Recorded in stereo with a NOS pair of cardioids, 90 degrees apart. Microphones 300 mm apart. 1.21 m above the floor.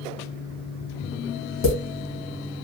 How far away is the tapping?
About 1.3 m.